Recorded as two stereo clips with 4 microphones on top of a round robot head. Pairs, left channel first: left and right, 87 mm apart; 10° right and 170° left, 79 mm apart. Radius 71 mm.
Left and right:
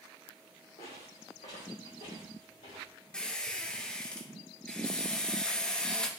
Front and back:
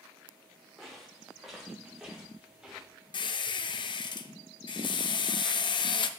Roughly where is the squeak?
Ahead.